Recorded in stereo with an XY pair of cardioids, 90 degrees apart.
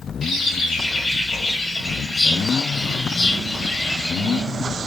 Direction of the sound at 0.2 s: 55° left.